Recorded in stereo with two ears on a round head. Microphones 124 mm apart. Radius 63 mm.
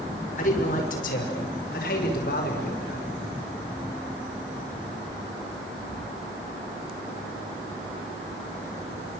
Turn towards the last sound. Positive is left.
turn(degrees=85)